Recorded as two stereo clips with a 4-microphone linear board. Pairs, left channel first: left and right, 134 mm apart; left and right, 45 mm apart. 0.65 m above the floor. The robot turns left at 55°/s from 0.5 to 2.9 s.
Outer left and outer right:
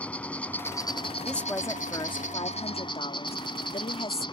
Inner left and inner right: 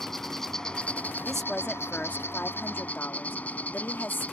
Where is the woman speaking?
175° left; by 4.2 s 85° left.